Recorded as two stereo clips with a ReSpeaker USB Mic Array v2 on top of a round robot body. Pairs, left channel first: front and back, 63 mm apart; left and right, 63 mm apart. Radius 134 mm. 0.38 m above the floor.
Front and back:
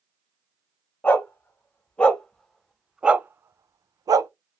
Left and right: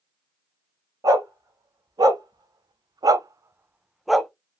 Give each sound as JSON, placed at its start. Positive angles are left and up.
{"t": 1.0, "sound": "a dog barking", "azimuth_deg": -65, "distance_m": 1.5}